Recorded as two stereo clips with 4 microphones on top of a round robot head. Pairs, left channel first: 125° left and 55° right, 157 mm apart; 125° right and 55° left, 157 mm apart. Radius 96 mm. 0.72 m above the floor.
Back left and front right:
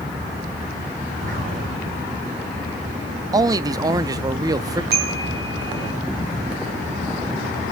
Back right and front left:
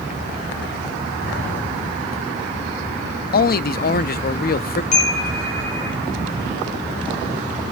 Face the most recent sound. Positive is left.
turn(degrees=-80)